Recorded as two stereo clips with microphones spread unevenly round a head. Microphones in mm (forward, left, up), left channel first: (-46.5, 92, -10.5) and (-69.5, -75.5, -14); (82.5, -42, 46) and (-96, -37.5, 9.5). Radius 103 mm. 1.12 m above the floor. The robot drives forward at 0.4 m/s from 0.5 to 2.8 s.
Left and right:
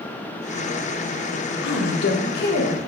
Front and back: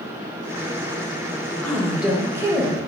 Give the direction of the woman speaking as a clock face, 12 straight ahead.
9 o'clock.